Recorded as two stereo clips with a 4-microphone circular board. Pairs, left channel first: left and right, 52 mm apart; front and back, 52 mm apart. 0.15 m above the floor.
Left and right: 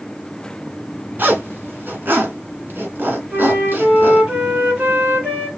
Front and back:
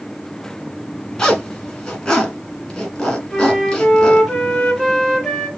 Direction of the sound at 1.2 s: 70° right.